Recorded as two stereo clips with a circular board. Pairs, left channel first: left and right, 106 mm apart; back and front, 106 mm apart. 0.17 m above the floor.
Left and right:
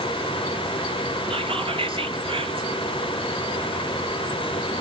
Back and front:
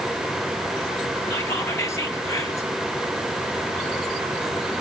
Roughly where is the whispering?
Behind right.